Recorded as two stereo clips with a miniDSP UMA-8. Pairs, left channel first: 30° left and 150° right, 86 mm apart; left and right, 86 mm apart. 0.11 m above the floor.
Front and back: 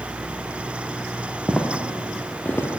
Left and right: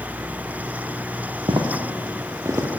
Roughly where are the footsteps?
Right.